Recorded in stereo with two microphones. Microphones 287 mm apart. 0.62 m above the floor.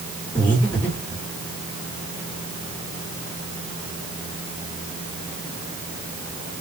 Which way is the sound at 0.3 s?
5° left (ahead or behind).